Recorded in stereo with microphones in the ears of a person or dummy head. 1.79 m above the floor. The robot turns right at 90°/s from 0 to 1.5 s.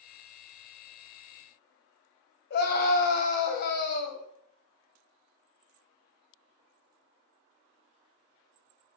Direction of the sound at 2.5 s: 50° left (ahead or behind).